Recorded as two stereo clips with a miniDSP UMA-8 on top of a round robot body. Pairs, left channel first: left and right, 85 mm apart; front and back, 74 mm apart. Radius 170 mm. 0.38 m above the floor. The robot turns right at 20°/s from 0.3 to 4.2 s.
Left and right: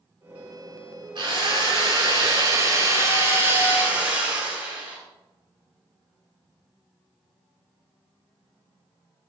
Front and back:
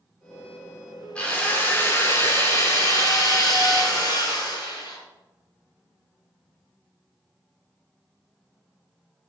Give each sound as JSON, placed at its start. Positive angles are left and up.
{"t": 1.1, "sound": "a drill", "azimuth_deg": -75, "distance_m": 6.0}